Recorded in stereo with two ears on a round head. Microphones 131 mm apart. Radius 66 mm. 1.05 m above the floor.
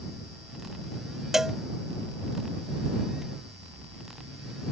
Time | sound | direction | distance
1.3 | a cowbell | 5° right (ahead or behind) | ?